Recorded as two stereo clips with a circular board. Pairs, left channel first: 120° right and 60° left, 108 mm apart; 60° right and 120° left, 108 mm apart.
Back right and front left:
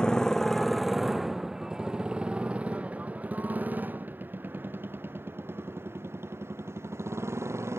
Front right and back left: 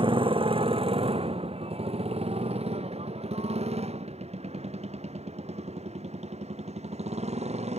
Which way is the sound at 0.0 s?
160° left.